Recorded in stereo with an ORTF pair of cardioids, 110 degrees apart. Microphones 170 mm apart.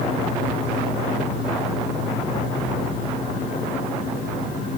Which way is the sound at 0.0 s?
50° left.